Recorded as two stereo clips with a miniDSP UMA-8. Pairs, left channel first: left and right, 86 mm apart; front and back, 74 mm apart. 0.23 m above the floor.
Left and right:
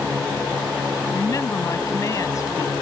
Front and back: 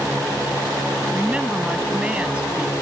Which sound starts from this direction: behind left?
A woman speaking, at 1.1 s.